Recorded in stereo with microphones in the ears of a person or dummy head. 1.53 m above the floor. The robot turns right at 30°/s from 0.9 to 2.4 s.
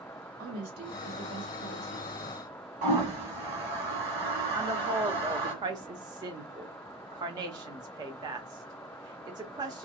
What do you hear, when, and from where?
0.4 s a woman speaking: 135° right, 1.1 m; by 2.1 s 100° right, 1.1 m
2.8 s a toilet flushing: 45° right (ahead or behind), 1.7 m
4.5 s a woman speaking: 20° right (ahead or behind), 0.7 m